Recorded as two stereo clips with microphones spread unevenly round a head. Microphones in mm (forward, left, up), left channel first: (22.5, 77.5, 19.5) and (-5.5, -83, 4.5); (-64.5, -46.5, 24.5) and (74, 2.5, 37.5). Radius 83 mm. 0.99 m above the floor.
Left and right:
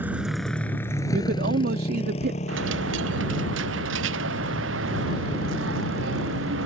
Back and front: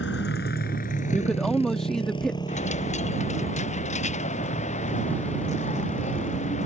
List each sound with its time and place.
0.0 s a motorcycle: straight behind; by 6.7 s 115° left
1.1 s a man speaking: 75° right
2.5 s a dropped coin: 115° right